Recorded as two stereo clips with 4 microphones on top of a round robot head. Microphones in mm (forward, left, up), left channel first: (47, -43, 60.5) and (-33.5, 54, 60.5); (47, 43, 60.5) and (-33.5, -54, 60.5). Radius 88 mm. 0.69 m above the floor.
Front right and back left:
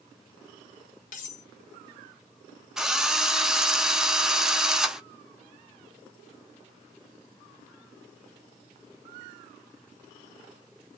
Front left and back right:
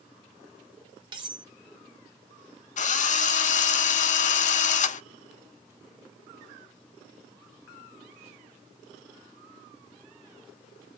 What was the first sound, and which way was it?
Cutlery clinking, 75° right.